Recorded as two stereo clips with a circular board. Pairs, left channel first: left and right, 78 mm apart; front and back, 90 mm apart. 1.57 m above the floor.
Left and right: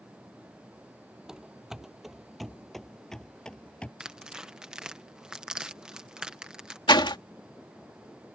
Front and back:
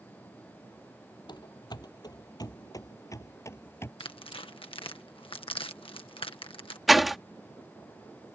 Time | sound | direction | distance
1.3 | running footsteps | 10° right | ?
4.0 | tearing paper | 10° right | ?
6.9 | a door slam | 90° left | ?